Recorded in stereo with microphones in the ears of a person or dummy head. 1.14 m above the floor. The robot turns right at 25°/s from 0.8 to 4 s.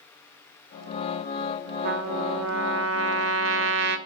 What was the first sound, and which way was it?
A trumpet, 125° right.